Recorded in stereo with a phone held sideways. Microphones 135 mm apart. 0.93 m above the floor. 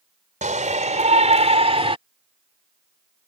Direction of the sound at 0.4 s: 65° right (ahead or behind).